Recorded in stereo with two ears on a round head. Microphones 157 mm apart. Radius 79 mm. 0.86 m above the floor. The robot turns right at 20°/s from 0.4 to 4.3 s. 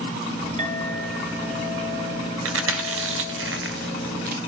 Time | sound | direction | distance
0.6 | a clink | 140° right | 8 m
2.5 | chewing | 85° right | 2.5 m